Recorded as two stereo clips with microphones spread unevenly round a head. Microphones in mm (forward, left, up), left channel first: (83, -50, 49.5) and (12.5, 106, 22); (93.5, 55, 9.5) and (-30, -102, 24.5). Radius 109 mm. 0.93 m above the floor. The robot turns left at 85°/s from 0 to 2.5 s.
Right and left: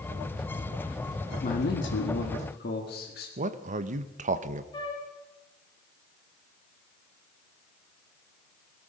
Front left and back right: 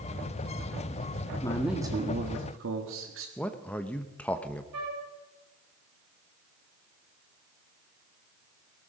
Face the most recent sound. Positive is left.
turn(degrees=-140)